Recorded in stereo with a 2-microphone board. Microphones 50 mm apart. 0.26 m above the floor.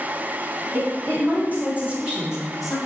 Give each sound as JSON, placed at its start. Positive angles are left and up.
{"t": 0.7, "sound": "a woman speaking", "side_deg": -40, "distance_m": 2.0}